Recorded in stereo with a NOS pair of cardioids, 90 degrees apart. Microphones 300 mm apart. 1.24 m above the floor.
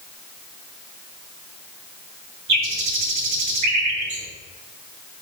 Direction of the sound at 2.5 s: 65° right.